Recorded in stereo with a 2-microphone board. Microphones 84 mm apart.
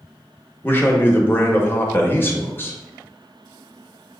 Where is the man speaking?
25° left (ahead or behind), 0.8 m.